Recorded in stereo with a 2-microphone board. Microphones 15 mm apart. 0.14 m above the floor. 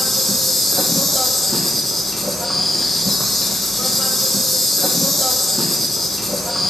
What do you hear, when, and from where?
0.0 s an insect: 10° left (ahead or behind), 1.5 m